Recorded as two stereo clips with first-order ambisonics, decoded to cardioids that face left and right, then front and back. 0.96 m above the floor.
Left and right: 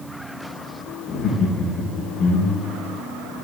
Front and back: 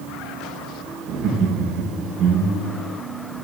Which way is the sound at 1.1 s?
135° left.